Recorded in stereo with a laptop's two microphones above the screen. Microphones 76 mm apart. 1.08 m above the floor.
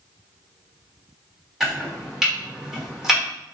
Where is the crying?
No crying in this recording.